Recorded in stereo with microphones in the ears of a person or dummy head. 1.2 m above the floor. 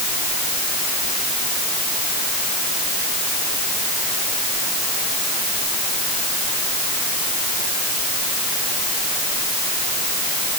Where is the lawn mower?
No lawn mower in this recording.